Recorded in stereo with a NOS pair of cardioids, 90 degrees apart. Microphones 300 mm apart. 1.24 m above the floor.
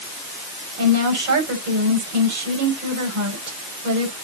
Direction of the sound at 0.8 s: 65° right.